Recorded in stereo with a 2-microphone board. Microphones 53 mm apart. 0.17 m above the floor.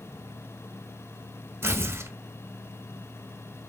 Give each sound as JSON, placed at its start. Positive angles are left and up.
{"t": 1.6, "sound": "tearing paper", "side_deg": -50, "distance_m": 0.8}